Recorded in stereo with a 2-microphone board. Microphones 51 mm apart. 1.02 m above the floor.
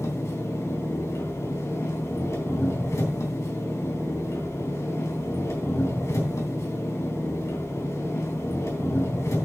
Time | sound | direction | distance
0.0 | an engine running | 75° left (ahead or behind) | 3.5 m